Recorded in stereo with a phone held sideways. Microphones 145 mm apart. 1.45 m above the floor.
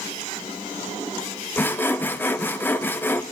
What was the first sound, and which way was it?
Sawing, 15° left (ahead or behind).